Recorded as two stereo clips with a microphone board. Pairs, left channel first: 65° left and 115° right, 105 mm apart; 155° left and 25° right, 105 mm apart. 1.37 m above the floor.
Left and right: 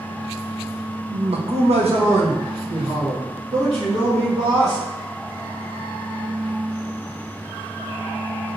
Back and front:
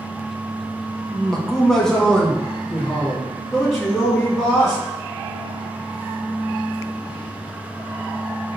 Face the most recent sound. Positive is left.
turn(degrees=-115)